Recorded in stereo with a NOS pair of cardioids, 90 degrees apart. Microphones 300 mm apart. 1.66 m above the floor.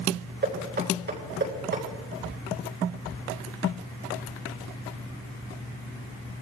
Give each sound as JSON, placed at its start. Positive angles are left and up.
{"t": 0.4, "sound": "knocking", "azimuth_deg": -35, "distance_m": 9.5}